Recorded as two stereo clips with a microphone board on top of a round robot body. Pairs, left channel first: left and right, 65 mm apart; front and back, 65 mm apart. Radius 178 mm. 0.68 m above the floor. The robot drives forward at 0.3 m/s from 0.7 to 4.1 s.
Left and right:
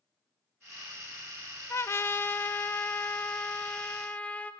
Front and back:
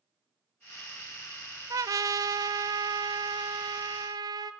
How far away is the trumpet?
About 0.7 m.